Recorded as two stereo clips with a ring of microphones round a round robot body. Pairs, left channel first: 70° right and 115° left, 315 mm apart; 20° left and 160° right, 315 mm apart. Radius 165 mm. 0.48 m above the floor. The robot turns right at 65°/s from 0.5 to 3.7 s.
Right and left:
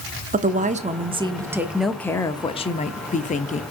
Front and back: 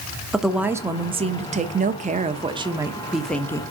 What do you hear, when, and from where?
0.3 s a woman speaking: 115° left, 0.8 m; by 3.6 s 40° right, 0.8 m